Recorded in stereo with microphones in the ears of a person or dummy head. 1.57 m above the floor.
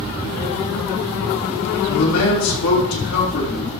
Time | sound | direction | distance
1.9 | a man speaking | 85° left | 3.5 m